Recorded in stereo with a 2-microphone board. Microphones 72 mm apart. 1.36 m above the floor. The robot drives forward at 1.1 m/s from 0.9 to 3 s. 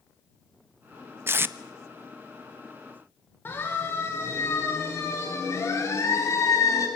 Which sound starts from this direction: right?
Tape being pulled, at 1.3 s.